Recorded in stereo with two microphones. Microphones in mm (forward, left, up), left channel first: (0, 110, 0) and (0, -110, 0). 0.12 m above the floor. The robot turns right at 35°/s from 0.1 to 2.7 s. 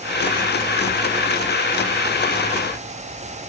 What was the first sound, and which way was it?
Only background noise.